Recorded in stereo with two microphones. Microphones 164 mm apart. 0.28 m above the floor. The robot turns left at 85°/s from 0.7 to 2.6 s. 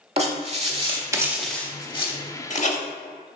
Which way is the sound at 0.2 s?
40° right (ahead or behind).